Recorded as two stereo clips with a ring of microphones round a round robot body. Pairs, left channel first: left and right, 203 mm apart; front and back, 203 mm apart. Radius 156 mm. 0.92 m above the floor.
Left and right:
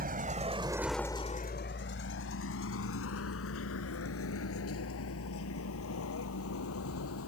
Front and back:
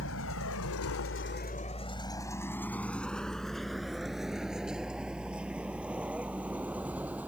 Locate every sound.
0.0 s a vehicle: 45° right; by 7.3 s 100° left